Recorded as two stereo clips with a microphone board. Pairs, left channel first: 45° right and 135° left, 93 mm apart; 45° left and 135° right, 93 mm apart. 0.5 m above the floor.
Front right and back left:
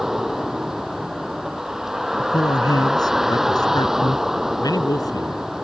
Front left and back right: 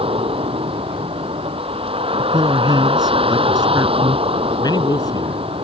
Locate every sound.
0.0 s a vehicle: 140° right
2.2 s a man speaking: 90° right
4.6 s a man speaking: 5° left